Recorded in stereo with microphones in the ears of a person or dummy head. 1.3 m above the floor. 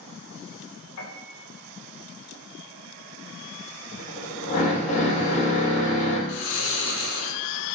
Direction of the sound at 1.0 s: 80° left.